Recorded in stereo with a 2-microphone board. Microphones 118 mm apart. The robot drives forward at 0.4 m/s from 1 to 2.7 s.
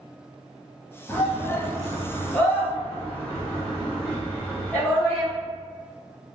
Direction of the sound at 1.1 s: 15° left (ahead or behind).